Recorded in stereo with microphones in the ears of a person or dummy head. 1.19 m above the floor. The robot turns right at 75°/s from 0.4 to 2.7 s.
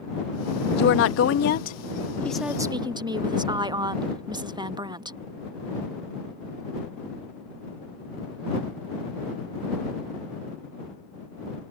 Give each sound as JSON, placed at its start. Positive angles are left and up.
{"t": 0.8, "sound": "a woman speaking", "azimuth_deg": 55}